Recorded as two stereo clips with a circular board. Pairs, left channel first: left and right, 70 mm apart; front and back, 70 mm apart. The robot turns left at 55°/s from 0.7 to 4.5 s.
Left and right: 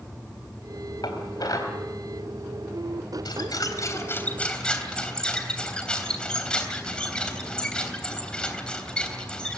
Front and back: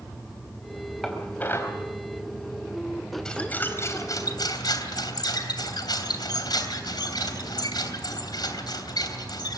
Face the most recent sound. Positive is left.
turn(degrees=15)